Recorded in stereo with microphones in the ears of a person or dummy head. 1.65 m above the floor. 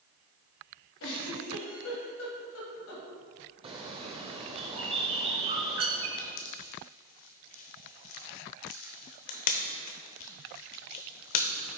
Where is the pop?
50° left (ahead or behind), 0.6 m.